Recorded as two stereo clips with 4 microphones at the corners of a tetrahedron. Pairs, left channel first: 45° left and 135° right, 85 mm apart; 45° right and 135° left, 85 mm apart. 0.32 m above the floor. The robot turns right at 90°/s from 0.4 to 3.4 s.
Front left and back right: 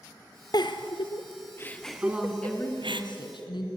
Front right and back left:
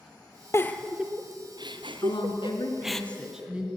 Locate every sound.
0.5 s a giggle: 10° left, 1.2 m; by 3.0 s 125° right, 1.2 m
2.0 s a woman speaking: 70° right, 3.5 m; by 3.7 s 60° left, 3.5 m